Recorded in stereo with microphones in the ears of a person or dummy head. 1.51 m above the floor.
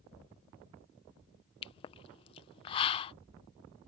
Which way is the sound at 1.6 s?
30° left (ahead or behind).